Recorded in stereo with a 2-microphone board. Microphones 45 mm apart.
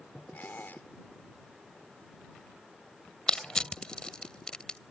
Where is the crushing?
15° left (ahead or behind).